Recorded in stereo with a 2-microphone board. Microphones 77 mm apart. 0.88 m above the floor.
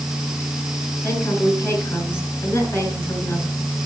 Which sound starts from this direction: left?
A woman speaking, at 1.0 s.